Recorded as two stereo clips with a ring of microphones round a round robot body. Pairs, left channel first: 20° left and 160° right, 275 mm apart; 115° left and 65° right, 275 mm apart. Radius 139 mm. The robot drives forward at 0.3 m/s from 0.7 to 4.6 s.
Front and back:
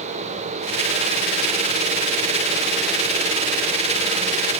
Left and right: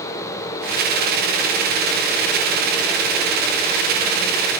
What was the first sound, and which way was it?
Only background noise.